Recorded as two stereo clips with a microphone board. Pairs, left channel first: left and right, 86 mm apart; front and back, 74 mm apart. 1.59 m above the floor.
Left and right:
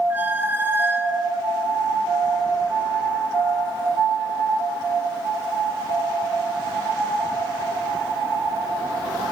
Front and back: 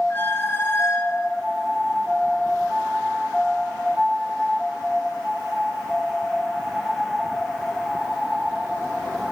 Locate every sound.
0.1 s a squeak: 35° right, 1.0 m